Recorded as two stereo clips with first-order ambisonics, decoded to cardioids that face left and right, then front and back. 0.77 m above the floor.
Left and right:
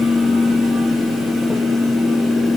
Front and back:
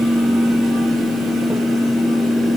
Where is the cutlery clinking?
No cutlery clinking in this recording.